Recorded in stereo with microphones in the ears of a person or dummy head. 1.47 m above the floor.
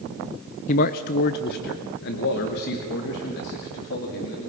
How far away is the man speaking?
About 0.6 m.